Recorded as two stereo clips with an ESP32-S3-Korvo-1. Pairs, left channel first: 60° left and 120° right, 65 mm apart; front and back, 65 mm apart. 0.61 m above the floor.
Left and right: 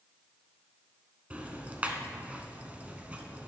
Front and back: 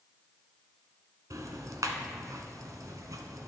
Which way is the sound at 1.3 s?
175° left.